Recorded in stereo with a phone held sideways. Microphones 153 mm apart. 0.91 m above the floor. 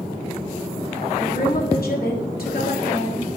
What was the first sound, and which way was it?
A woman speaking, 75° left (ahead or behind).